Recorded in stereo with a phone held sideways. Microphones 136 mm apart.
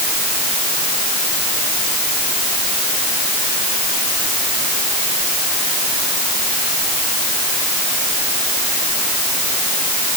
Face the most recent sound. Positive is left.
No sound to turn to.